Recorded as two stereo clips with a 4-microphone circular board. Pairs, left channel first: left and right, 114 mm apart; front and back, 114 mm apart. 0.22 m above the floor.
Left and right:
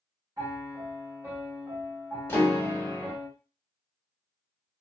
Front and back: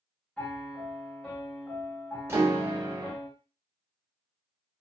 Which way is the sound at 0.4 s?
80° right.